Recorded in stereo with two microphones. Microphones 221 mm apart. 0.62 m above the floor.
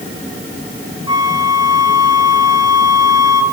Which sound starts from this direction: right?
A flute, at 1.1 s.